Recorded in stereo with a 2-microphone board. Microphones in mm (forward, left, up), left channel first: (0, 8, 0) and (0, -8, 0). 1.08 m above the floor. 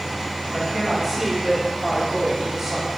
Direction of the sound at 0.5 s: 10° right (ahead or behind).